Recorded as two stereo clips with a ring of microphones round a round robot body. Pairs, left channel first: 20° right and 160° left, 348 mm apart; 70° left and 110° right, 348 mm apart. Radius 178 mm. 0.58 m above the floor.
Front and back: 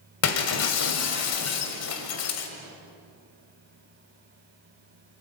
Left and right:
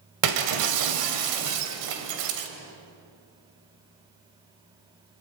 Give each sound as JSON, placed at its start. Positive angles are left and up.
{"t": 0.2, "sound": "breaking glass", "azimuth_deg": -75, "distance_m": 2.0}